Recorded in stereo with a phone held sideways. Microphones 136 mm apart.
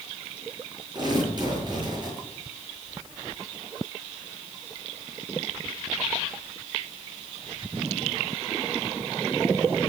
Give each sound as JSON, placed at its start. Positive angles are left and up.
{"t": 0.9, "sound": "tearing paper", "side_deg": -35, "distance_m": 9.5}